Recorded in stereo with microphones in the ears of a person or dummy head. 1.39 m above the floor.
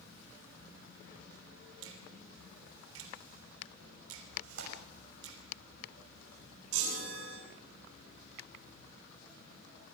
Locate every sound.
1.8 s a finger snap: 80° right, 3 m
4.4 s tearing paper: 80° right, 5.5 m
6.7 s a chime: 80° right, 6 m